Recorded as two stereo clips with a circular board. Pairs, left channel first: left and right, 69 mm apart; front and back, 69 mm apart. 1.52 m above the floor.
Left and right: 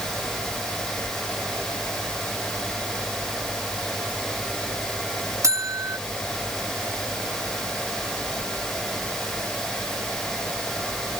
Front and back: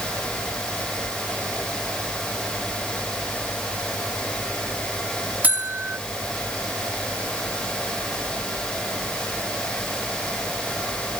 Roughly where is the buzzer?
Behind right.